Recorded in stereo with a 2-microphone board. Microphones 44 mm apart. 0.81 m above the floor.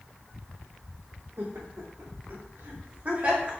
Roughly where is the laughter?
Right.